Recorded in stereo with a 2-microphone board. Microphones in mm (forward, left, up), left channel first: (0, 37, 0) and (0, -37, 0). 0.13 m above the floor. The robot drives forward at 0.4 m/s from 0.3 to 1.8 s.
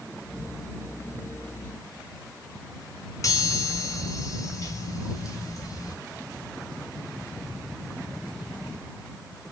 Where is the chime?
45° left (ahead or behind), 1.6 m.